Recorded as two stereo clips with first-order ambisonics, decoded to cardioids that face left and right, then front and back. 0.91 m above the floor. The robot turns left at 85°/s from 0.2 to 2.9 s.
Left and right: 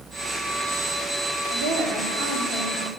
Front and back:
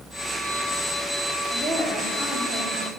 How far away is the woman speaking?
About 2.5 m.